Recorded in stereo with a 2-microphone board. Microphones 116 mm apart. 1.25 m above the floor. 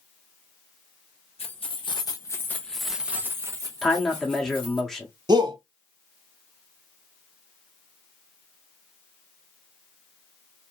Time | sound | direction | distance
1.4 | keys jangling | 55° left (ahead or behind) | 0.9 m
3.8 | a man speaking | centre (ahead or behind) | 0.7 m
5.3 | a shout | 40° right (ahead or behind) | 0.7 m